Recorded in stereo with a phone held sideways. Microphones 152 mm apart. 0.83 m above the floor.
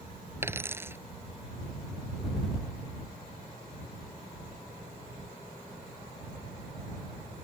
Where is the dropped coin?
15° right (ahead or behind).